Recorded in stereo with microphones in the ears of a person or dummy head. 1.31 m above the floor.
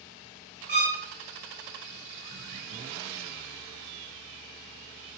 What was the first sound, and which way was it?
A violin, 50° right (ahead or behind).